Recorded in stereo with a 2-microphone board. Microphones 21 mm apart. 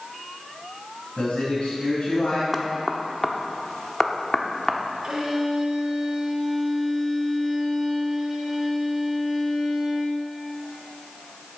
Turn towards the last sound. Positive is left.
turn(degrees=-30)  # may be behind; listen again after turning